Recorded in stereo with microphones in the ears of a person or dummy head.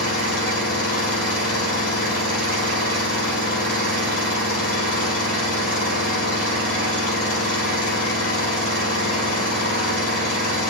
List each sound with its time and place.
0.0 s an engine running: 50° left (ahead or behind), 4.5 m